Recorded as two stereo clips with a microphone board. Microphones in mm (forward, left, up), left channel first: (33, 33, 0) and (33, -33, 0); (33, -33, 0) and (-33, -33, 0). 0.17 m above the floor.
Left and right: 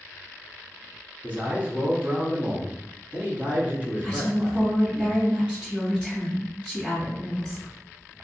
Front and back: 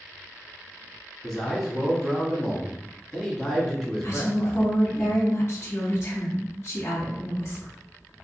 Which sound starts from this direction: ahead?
A woman speaking, at 4.0 s.